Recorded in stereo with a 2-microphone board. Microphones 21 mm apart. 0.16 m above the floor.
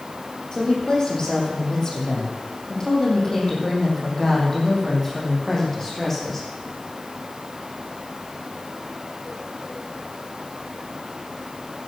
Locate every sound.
0.5 s a woman speaking: 35° left (ahead or behind), 6 m; by 6.5 s 15° left (ahead or behind), 8 m